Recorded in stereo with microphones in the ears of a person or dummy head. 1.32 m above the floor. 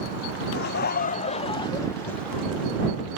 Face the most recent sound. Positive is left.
turn(degrees=-10)  # may be behind; listen again after turning